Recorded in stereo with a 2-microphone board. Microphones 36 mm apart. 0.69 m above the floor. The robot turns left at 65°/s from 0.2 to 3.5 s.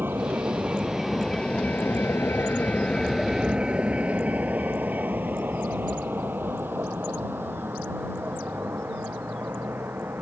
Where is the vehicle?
70° right (ahead or behind); by 10.2 s 85° right.